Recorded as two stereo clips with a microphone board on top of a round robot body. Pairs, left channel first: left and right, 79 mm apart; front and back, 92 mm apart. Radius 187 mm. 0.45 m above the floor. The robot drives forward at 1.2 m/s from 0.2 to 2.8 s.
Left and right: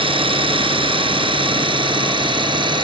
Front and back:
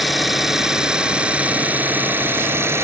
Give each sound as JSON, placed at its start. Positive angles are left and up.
{"t": 0.0, "sound": "an engine running", "azimuth_deg": -90}